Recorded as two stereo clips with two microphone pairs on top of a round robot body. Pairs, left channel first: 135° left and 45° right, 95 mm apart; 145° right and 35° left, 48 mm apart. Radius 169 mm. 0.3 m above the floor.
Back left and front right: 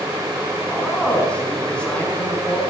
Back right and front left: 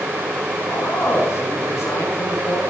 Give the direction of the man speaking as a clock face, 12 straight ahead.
5 o'clock.